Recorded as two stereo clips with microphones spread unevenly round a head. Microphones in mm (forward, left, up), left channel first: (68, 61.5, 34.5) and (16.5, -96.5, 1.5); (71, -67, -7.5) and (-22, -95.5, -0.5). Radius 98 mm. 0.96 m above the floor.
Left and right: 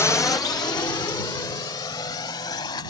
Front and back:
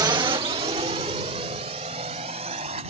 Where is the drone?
155° left; by 2.9 s 145° left.